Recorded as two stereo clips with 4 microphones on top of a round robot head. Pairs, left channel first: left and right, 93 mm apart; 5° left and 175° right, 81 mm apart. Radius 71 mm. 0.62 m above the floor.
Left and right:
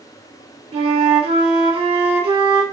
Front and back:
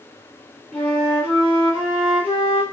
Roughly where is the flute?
Right.